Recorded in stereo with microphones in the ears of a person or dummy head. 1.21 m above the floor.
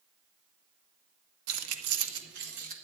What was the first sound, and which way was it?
Keys jangling, 85° right.